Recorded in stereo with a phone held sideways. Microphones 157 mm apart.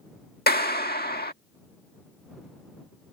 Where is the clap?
80° left.